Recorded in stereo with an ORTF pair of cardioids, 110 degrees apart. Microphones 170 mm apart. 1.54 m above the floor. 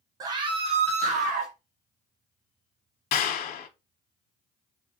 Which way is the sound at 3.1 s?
60° left.